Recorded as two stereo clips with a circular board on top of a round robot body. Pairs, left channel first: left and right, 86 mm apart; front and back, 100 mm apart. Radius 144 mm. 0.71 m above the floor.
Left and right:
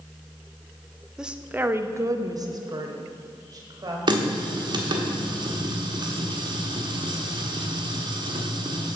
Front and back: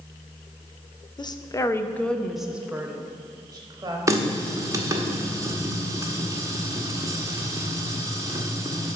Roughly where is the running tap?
Behind right.